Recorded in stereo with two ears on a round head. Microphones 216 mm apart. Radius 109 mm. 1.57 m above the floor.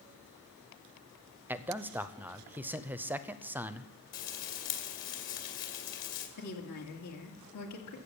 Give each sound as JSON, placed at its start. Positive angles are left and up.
{"t": 1.5, "sound": "a man speaking", "side_deg": -10, "distance_m": 0.5}
{"t": 4.1, "sound": "frying", "side_deg": 50, "distance_m": 2.5}
{"t": 6.4, "sound": "a woman speaking", "side_deg": 75, "distance_m": 2.5}